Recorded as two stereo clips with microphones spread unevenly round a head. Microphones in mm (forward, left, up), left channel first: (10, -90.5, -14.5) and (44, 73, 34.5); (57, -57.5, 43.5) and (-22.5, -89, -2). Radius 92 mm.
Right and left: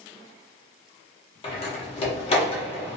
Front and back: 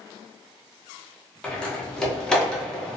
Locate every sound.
1.4 s a door slam: 40° right, 0.7 m